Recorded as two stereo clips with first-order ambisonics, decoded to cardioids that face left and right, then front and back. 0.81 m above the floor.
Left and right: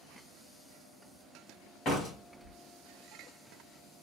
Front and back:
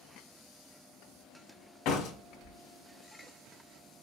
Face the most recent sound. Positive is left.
turn(degrees=30)